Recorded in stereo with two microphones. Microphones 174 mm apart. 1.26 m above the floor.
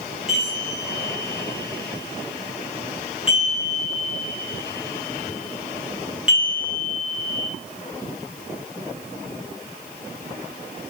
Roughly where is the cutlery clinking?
I don't hear cutlery clinking.